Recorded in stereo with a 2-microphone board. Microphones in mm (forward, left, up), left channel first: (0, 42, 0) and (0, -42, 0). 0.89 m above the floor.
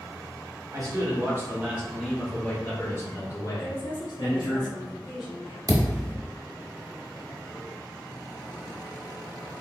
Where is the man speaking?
40° right (ahead or behind), 1.1 m; by 4.6 s 60° left (ahead or behind), 1.5 m.